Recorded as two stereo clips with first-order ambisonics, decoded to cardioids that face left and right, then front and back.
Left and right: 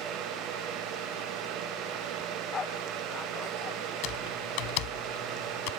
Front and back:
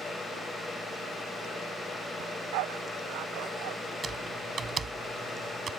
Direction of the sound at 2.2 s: 160° left.